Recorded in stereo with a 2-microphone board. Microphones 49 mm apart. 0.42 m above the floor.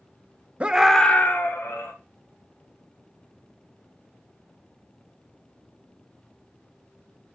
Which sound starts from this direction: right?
A scream, at 0.6 s.